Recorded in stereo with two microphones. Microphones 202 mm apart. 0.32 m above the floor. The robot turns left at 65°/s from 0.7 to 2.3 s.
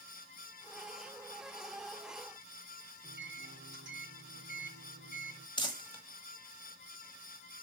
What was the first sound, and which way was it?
A microwave, 65° right (ahead or behind).